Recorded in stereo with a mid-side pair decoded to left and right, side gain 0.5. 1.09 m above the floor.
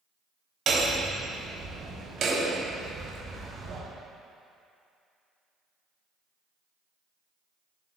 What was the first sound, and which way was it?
Hammering, 50° right.